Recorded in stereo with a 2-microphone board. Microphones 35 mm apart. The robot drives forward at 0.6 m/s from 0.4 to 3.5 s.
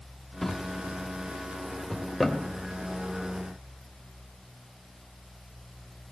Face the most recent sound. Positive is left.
turn(degrees=5)  # may be behind; listen again after turning